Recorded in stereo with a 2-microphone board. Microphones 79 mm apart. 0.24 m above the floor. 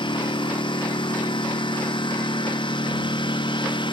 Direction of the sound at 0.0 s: 90° left.